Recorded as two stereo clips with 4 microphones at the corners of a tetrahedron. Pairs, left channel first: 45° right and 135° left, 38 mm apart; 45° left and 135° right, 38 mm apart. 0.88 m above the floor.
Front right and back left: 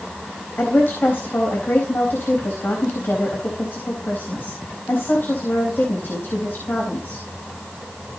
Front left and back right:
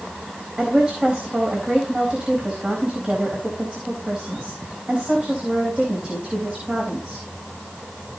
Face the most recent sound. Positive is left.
turn(degrees=-75)